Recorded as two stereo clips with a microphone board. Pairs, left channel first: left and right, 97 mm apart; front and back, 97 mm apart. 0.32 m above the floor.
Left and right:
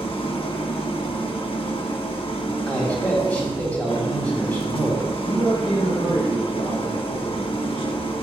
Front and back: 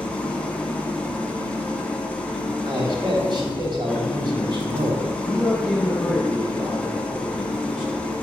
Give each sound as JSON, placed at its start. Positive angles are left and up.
{"t": 0.0, "sound": "an engine running", "azimuth_deg": 75, "distance_m": 1.0}
{"t": 2.7, "sound": "a man speaking", "azimuth_deg": 160, "distance_m": 2.5}
{"t": 5.2, "sound": "a man speaking", "azimuth_deg": 95, "distance_m": 4.0}